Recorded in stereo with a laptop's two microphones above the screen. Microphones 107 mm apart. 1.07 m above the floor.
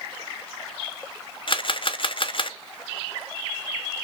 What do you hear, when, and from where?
1.5 s a camera shutter: 50° left (ahead or behind), 0.5 m